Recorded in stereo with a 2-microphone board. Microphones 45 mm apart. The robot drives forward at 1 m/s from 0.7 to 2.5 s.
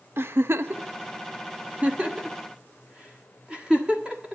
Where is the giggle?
65° right (ahead or behind), 0.7 m; by 4.3 s 20° right (ahead or behind), 1.6 m.